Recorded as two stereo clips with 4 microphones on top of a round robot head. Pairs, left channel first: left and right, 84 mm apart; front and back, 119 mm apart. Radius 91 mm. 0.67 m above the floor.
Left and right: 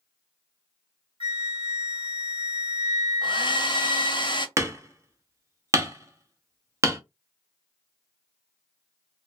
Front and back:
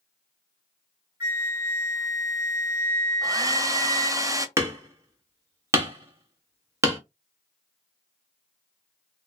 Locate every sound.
1.2 s a flute: 110° right, 1.5 m
3.2 s a hair dryer: 115° left, 0.6 m
4.6 s hammering: 125° right, 1.0 m